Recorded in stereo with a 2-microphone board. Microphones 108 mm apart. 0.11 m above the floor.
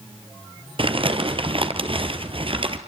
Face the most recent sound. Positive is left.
turn(degrees=-55)  # may be behind; listen again after turning